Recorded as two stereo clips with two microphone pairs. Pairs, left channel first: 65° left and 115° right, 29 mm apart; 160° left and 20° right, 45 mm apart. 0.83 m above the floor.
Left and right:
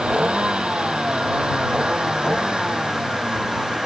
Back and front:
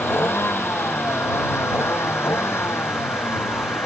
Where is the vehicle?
165° right; by 3.9 s straight behind.